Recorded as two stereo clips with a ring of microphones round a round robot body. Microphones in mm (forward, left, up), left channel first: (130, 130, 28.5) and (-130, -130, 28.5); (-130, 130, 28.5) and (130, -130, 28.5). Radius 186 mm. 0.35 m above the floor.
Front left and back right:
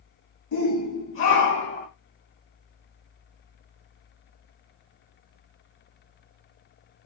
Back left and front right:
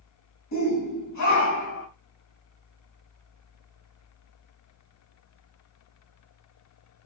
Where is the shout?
95° left, 3 m; by 1.9 s 105° left, 2.5 m.